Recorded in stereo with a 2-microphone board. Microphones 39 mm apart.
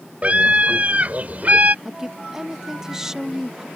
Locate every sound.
0.2 s a scream: 35° right (ahead or behind); by 1.8 s 45° right (ahead or behind)
1.9 s a woman speaking: 10° right (ahead or behind)